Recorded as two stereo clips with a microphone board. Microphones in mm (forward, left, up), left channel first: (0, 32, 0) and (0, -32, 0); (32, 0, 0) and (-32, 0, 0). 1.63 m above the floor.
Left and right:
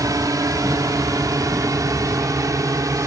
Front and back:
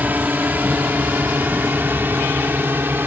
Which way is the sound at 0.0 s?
120° right.